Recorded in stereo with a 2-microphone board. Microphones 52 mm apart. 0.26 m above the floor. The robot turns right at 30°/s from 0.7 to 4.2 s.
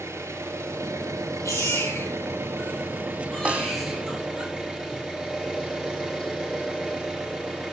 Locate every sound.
0.0 s an engine running: 120° right, 4 m; by 7.7 s 15° right, 4 m
1.4 s a baby crying: 70° left (ahead or behind), 4 m; by 4.5 s 10° right (ahead or behind), 4 m
3.5 s a snare drum: 25° right (ahead or behind), 1.0 m; by 3.7 s 35° right (ahead or behind), 1.0 m